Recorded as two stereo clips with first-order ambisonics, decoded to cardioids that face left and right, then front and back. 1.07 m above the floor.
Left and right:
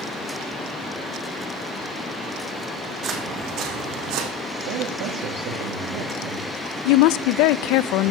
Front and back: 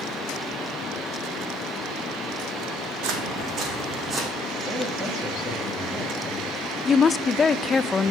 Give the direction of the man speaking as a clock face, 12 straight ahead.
3 o'clock.